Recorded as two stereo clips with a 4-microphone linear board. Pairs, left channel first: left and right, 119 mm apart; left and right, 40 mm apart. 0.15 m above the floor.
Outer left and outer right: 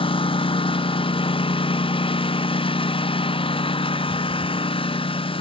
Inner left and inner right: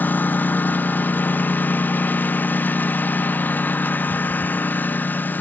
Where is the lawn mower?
50° left (ahead or behind).